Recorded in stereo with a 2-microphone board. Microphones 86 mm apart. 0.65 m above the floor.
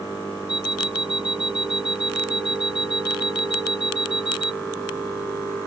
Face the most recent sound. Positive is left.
turn(degrees=75)  # may be behind; listen again after turning